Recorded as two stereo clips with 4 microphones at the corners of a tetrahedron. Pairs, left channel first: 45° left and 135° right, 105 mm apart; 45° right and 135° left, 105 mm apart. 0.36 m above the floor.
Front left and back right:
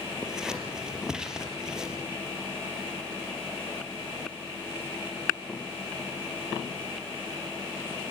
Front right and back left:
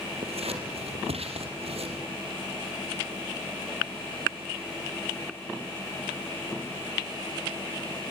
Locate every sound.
0.2 s scissors: 140° left, 4 m